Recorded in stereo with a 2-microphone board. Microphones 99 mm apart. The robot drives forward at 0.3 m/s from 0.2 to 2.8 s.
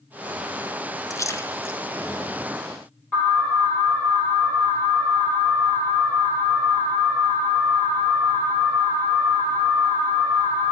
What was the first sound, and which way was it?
A splash, 35° left (ahead or behind).